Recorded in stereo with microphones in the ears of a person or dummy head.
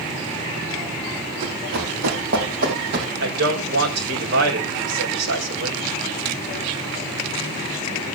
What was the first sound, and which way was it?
Running footsteps, 65° right (ahead or behind).